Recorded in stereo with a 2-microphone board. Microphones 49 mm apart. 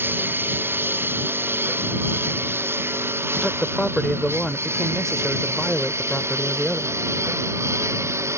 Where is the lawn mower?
45° right (ahead or behind); by 8.4 s 75° right (ahead or behind).